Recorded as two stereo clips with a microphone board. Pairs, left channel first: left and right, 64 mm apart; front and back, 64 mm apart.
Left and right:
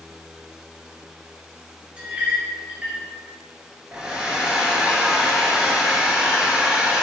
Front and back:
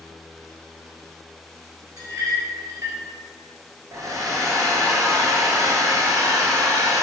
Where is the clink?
160° right, 1.6 m.